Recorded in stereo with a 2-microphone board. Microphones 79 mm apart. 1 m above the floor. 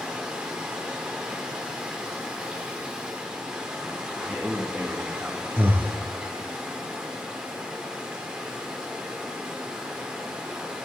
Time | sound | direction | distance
0.0 | running water | 10° right (ahead or behind) | 1.7 m
4.2 | a man speaking | 15° right (ahead or behind) | 1.6 m
5.6 | breathing | 25° right (ahead or behind) | 0.7 m